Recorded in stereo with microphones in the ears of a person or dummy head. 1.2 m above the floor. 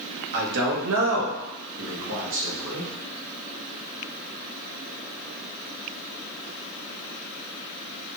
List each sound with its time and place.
0.3 s a man speaking: 60° right (ahead or behind), 1.2 m; by 2.9 s 75° right (ahead or behind), 2.5 m